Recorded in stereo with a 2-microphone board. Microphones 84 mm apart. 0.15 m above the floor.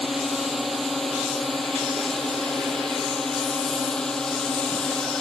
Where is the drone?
Centre (ahead or behind); by 5.2 s 10° left (ahead or behind).